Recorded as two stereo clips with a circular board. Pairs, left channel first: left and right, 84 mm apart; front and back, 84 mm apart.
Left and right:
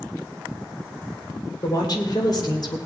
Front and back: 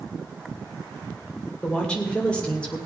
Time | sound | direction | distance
1.6 | a woman speaking | 75° left | 2 m